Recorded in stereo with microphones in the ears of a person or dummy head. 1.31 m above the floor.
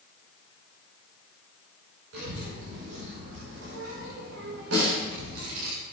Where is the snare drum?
85° right, 4.5 m.